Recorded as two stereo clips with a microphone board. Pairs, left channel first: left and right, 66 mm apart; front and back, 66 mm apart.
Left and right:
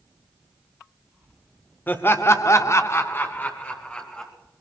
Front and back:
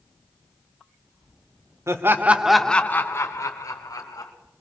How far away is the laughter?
About 1.2 m.